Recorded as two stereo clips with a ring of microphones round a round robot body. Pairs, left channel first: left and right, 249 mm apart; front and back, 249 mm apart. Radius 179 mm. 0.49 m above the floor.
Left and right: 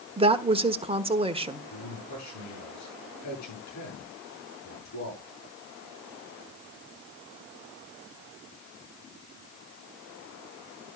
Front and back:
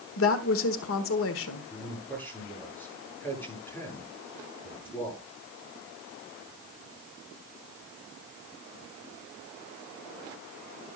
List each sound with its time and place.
0.2 s a woman speaking: 25° right, 1.2 m
1.7 s a man speaking: 85° left, 9.5 m